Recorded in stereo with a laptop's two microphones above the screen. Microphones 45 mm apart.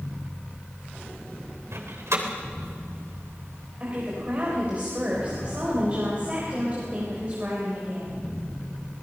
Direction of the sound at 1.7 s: 80° right.